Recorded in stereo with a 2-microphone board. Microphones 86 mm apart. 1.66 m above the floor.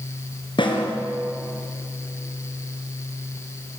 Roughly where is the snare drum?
Left.